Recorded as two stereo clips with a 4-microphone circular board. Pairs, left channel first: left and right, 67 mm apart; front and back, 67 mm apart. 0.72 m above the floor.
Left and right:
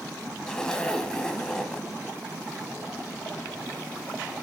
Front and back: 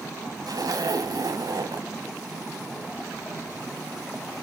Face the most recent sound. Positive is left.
turn(degrees=165)